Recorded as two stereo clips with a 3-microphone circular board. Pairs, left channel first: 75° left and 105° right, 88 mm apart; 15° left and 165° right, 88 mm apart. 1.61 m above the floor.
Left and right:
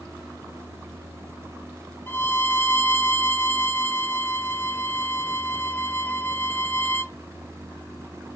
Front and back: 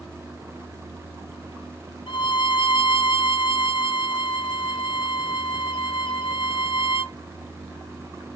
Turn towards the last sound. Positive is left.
turn(degrees=5)